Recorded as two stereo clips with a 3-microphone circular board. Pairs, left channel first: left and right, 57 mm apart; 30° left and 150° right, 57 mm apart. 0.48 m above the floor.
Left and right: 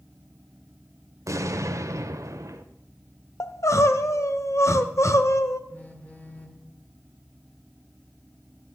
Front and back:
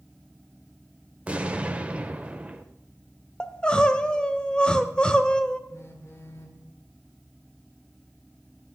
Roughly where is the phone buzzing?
Ahead left.